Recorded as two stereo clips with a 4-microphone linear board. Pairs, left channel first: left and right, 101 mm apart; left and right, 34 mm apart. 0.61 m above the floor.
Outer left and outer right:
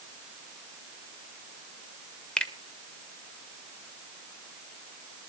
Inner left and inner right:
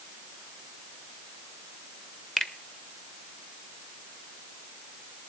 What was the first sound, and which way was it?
A finger snap, 5° left (ahead or behind).